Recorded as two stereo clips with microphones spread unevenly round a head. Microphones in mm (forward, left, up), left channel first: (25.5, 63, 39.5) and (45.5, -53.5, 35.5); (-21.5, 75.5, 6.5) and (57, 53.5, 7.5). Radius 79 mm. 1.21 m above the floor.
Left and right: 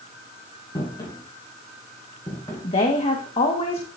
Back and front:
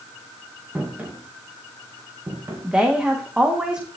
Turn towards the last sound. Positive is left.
turn(degrees=65)